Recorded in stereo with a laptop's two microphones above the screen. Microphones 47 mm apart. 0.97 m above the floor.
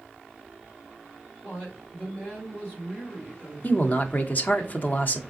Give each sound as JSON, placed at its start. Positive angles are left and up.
{"t": 1.4, "sound": "a woman speaking", "side_deg": 40, "distance_m": 2.0}
{"t": 3.6, "sound": "a man speaking", "side_deg": 40, "distance_m": 0.9}